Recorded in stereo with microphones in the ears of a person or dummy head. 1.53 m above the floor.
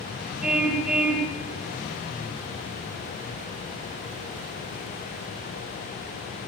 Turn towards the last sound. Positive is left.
turn(degrees=-10)  # may be behind; listen again after turning